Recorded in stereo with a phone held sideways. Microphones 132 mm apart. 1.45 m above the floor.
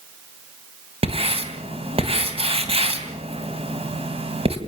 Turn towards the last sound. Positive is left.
turn(degrees=-45)  # may be behind; listen again after turning